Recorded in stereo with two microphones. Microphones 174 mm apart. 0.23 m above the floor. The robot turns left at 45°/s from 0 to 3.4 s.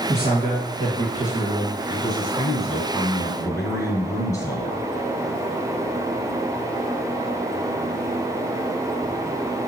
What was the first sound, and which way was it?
A man speaking, 40° right.